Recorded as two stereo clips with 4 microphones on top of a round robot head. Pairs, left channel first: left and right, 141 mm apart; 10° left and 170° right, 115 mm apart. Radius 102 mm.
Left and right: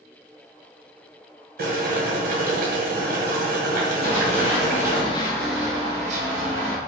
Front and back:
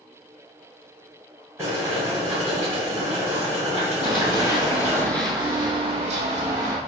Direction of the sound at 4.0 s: 55° left.